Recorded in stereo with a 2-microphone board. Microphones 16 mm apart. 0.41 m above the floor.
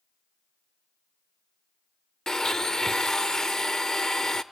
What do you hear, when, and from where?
2.3 s a blender: 35° left (ahead or behind), 0.5 m